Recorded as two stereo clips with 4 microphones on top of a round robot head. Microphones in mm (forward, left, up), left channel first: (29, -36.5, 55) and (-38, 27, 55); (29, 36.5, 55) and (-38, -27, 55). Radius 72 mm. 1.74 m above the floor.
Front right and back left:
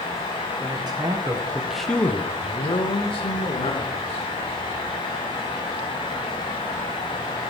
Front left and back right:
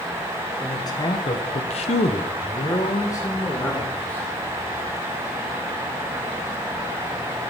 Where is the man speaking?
95° left, 2 m; by 4.3 s 30° right, 3.5 m.